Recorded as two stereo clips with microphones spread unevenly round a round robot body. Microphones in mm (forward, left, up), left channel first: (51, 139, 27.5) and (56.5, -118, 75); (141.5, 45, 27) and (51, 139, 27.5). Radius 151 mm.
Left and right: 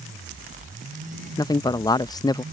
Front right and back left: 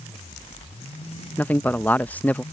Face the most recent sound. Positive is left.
turn(degrees=30)